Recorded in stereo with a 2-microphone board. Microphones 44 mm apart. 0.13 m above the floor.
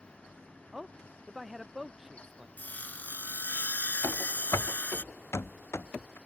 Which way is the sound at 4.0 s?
85° left.